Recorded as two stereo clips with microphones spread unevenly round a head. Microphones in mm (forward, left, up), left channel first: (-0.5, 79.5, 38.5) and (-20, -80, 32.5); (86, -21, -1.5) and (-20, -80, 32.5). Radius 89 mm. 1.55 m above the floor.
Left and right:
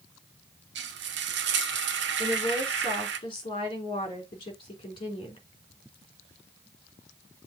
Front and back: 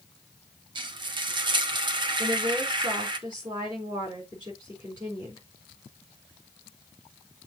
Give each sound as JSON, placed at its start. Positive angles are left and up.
{"t": 0.8, "sound": "frying", "azimuth_deg": -110, "distance_m": 1.2}
{"t": 2.2, "sound": "a woman speaking", "azimuth_deg": 145, "distance_m": 3.5}